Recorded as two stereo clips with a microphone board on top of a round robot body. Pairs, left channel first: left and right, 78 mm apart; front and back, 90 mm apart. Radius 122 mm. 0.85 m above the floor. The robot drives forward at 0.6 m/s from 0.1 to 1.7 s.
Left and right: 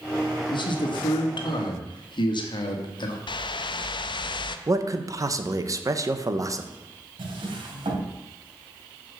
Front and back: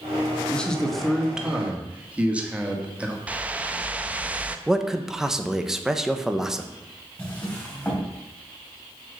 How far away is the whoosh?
About 0.6 m.